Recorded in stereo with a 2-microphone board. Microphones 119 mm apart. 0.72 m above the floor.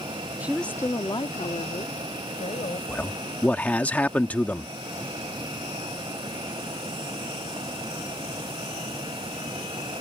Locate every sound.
0.4 s a woman speaking: 15° right (ahead or behind); by 2.8 s 70° left (ahead or behind)
2.9 s a man speaking: 15° left (ahead or behind)